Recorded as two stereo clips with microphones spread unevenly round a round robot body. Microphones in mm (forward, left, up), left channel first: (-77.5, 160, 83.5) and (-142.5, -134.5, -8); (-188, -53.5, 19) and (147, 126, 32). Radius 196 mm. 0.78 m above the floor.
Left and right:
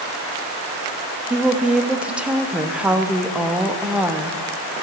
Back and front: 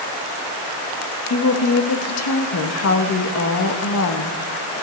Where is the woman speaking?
170° right, 1.1 m.